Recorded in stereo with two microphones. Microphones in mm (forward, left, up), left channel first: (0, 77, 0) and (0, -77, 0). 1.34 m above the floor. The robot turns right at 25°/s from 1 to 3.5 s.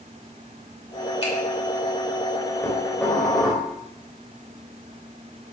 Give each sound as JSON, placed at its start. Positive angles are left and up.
{"t": 1.2, "sound": "a finger snap", "side_deg": 40, "distance_m": 4.0}
{"t": 2.6, "sound": "dishes clattering", "side_deg": 20, "distance_m": 4.5}